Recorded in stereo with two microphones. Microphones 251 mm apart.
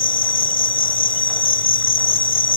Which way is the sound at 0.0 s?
55° left (ahead or behind).